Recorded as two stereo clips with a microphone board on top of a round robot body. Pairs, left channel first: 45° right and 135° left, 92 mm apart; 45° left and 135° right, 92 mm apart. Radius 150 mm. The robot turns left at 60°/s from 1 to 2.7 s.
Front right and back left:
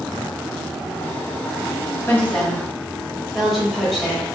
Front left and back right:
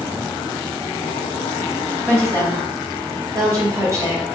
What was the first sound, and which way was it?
A woman speaking, 95° right.